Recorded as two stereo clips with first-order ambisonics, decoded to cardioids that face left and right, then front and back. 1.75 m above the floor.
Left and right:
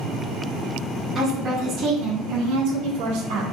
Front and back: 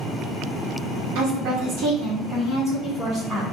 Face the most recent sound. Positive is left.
turn(degrees=-100)